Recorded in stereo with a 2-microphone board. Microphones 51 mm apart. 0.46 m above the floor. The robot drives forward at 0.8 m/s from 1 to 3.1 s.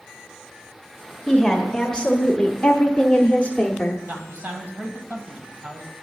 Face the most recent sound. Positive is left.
turn(degrees=-30)  # may be behind; listen again after turning